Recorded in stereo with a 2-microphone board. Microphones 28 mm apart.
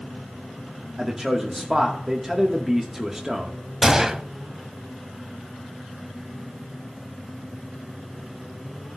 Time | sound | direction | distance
1.0 | a man speaking | 15° right (ahead or behind) | 1.1 m
3.8 | a gunshot | 20° right (ahead or behind) | 0.6 m